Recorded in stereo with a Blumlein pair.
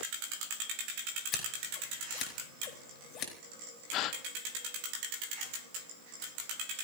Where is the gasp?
35° left, 0.8 m.